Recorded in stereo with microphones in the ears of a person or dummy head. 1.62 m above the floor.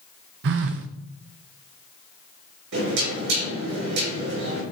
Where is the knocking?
70° right (ahead or behind), 5 m.